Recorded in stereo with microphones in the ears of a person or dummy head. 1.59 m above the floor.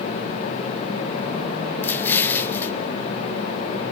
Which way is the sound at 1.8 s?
10° left (ahead or behind).